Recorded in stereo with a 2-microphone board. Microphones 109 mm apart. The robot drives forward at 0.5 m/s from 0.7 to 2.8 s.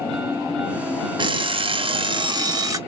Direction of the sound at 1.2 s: 45° right (ahead or behind).